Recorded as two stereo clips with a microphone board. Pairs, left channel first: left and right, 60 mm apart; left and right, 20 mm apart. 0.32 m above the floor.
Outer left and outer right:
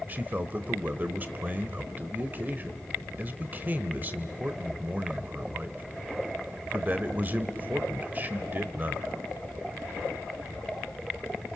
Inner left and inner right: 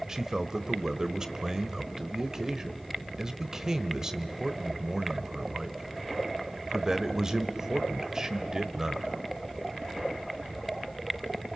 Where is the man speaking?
30° right (ahead or behind), 1.0 m.